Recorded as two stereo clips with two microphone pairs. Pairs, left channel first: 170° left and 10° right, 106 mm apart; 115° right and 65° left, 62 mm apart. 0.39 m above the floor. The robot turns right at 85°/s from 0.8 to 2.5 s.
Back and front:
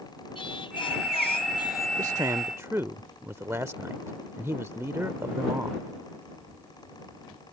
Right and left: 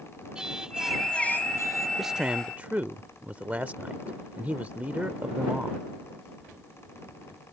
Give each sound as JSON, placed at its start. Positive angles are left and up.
{"t": 0.3, "sound": "singing", "azimuth_deg": 140}
{"t": 2.0, "sound": "a man speaking", "azimuth_deg": -15}